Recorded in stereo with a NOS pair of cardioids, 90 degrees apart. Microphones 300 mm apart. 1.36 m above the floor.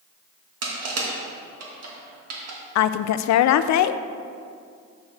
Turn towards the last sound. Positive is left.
turn(degrees=65)